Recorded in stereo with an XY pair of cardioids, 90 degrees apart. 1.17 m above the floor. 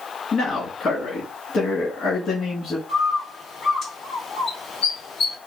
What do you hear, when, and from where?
0.3 s a man speaking: 65° left, 2.5 m
2.9 s a bird: 65° left, 1.5 m